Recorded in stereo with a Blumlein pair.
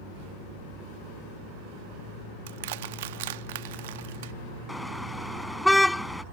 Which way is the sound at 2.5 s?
55° right.